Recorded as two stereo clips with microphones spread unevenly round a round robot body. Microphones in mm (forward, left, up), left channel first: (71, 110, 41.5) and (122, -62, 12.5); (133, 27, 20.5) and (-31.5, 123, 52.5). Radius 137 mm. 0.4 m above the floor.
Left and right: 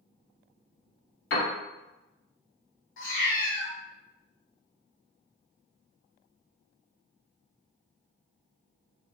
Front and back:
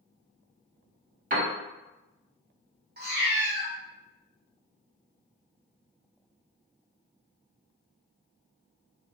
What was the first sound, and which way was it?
A piano, 100° left.